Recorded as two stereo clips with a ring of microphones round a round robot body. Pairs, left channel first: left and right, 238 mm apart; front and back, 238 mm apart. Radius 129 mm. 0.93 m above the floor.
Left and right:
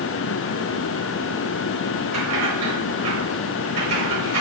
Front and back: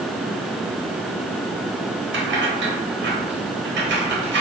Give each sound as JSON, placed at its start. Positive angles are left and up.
{"t": 2.1, "sound": "keys jangling", "azimuth_deg": -130, "distance_m": 1.3}